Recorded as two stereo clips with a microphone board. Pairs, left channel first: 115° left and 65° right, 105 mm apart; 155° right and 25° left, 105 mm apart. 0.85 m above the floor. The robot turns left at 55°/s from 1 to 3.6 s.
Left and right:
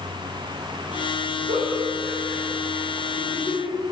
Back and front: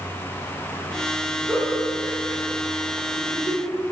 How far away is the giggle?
About 2.5 m.